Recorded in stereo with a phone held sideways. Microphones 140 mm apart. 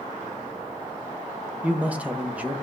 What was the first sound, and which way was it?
A man speaking, 10° right (ahead or behind).